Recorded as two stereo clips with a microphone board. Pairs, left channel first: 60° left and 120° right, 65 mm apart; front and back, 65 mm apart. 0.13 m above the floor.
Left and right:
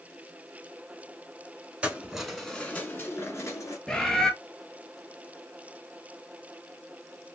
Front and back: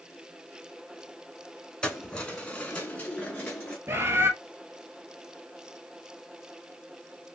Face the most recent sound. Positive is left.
turn(degrees=135)